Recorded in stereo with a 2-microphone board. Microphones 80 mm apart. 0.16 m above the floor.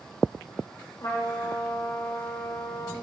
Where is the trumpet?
45° left (ahead or behind), 3.5 m.